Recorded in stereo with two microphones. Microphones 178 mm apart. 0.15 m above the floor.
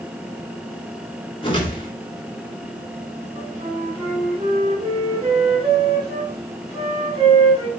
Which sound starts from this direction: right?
A flute, at 3.4 s.